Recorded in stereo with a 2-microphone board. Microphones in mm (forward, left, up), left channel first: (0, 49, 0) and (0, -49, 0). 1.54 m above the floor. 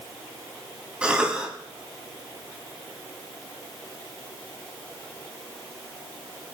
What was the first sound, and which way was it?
A cough, 10° right (ahead or behind).